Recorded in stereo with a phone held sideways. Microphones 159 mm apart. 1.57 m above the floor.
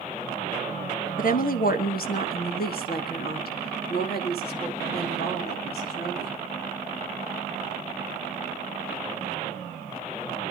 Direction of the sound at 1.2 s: 60° left (ahead or behind).